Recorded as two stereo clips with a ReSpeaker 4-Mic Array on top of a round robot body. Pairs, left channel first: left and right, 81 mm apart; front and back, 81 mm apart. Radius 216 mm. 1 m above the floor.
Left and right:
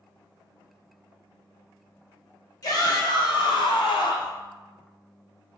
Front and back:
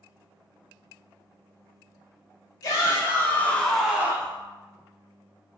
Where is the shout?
50° left, 1.5 m; by 4.4 s 125° left, 0.9 m.